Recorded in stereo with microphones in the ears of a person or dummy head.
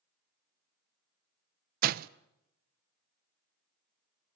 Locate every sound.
1.8 s a door slam: 55° right (ahead or behind), 0.5 m